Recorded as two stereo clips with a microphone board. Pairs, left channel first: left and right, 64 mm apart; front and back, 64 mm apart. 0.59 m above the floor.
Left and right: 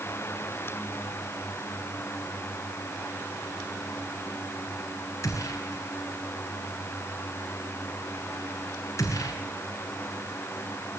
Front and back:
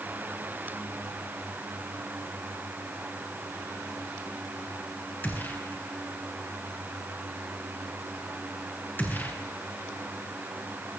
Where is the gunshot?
60° left, 7 m.